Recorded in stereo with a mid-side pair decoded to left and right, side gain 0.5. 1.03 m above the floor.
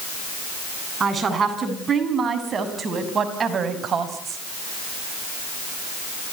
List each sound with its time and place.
1.0 s a woman speaking: 35° right, 8.5 m; by 4.4 s 50° right, 5 m